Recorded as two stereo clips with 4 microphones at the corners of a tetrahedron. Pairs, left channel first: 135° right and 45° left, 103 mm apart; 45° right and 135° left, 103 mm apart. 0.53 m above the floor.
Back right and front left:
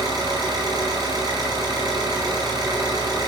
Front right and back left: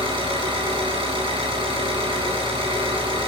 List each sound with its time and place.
0.0 s an engine running: 95° left, 7.5 m